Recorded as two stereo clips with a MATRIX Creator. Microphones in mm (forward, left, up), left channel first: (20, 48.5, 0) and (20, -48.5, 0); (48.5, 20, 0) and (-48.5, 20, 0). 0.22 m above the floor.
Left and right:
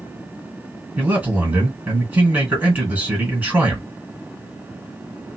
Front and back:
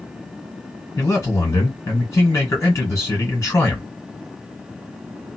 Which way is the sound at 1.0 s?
35° right.